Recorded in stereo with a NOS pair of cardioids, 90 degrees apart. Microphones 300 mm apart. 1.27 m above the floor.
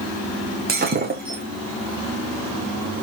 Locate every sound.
0.7 s breaking glass: 35° right, 4.5 m